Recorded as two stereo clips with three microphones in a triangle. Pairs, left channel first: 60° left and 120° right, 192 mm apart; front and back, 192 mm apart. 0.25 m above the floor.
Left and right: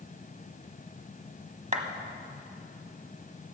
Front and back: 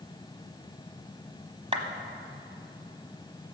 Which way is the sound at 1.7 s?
140° right.